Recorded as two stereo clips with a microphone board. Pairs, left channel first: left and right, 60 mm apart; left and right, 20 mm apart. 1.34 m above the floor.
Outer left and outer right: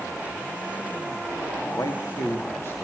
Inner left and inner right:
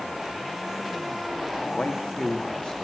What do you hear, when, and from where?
1.7 s a man speaking: 60° left (ahead or behind), 2.5 m; by 2.9 s 35° left (ahead or behind), 2.5 m